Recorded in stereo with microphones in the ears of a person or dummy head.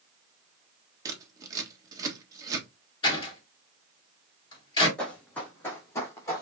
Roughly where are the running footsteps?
Centre.